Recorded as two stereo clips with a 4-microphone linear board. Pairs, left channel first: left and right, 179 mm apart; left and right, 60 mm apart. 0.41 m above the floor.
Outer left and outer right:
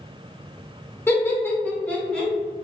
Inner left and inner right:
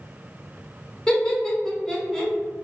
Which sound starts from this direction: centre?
Laughter, at 1.1 s.